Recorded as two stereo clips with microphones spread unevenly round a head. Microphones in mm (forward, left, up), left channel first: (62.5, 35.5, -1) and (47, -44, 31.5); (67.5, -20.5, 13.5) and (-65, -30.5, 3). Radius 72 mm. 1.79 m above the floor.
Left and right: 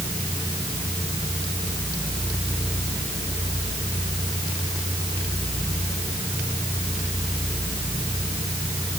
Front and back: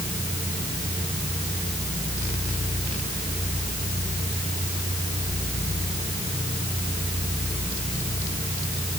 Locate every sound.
Only background noise.